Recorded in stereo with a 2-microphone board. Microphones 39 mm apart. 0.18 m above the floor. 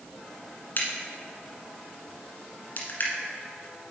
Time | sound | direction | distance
0.8 | a crack | 50° left (ahead or behind) | 1.5 m